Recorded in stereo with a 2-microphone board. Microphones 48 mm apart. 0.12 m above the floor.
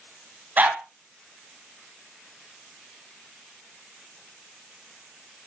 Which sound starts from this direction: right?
A dog barking, at 0.6 s.